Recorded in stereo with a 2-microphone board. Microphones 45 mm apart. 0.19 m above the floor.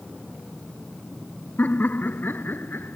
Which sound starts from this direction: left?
Laughter, at 1.6 s.